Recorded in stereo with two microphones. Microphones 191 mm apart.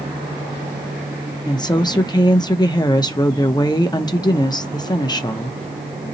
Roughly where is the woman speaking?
Left.